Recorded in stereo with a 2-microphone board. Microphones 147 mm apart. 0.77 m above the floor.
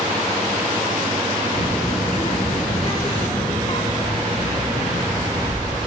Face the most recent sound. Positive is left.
turn(degrees=45)  # may be behind; listen again after turning